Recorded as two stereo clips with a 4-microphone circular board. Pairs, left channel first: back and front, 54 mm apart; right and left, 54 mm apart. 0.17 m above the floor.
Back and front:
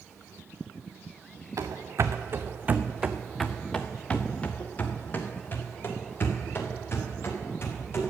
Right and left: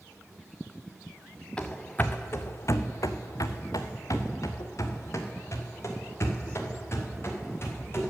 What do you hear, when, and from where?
1.6 s running footsteps: 15° right, 0.9 m; by 8.1 s 135° right, 3.5 m